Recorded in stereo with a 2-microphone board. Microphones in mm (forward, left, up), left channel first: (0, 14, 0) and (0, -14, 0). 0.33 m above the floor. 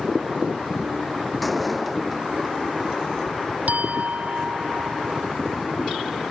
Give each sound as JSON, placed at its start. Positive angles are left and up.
{"t": 1.4, "sound": "a door slam", "side_deg": 0}
{"t": 3.7, "sound": "a clink", "side_deg": -65}